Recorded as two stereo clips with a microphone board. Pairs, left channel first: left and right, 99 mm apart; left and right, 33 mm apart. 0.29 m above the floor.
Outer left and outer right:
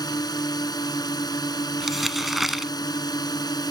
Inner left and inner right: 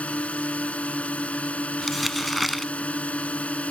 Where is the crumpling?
Centre (ahead or behind).